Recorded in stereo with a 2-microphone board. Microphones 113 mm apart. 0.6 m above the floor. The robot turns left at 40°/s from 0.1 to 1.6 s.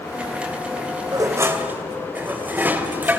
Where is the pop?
No pop in this recording.